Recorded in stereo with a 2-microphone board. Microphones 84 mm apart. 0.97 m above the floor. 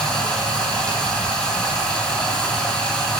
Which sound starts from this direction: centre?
Running water, at 0.0 s.